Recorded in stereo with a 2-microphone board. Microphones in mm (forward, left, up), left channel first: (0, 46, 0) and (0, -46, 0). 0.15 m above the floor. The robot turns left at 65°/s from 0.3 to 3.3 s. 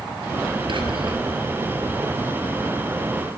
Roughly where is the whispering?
Right.